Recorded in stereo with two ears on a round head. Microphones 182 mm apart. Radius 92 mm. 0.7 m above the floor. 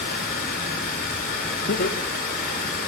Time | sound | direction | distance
0.0 | running water | 45° left (ahead or behind) | 2 m
1.7 | laughter | 50° left (ahead or behind) | 0.8 m